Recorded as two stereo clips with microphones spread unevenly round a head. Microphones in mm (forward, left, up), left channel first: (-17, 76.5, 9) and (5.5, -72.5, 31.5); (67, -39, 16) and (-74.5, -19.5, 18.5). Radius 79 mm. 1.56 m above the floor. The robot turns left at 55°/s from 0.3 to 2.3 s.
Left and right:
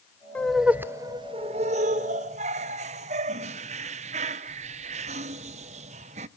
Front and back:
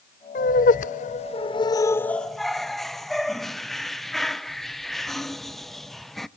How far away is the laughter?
About 0.6 m.